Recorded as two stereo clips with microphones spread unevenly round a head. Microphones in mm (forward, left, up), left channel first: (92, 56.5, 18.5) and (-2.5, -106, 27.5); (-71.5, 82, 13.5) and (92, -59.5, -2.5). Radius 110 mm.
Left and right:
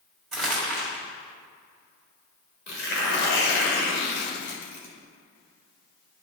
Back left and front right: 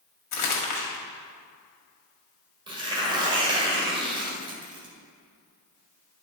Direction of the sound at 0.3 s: 145° left.